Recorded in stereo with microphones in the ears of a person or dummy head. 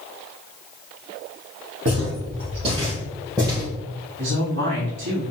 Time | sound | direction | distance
1.9 | footsteps | 35° right (ahead or behind) | 1.8 m
4.2 | a man speaking | 70° right (ahead or behind) | 1.9 m